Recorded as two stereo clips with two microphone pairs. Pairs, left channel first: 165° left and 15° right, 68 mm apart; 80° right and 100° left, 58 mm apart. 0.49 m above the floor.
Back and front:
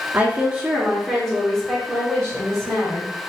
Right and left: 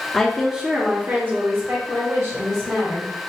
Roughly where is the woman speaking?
Ahead.